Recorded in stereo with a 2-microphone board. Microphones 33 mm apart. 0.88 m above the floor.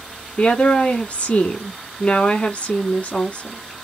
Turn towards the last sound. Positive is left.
turn(degrees=45)  # may be behind; listen again after turning